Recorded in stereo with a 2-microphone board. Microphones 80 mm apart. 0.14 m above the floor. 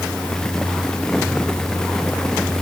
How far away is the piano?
No piano in this recording.